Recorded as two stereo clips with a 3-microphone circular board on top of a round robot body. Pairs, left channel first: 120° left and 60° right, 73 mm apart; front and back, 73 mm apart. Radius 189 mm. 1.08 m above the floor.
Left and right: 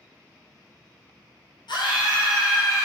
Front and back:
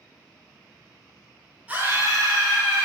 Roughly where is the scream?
Left.